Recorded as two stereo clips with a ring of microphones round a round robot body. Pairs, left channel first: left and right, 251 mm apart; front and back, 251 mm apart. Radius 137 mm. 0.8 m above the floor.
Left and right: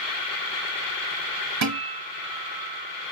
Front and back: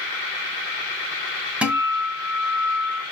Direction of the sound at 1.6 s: 95° right.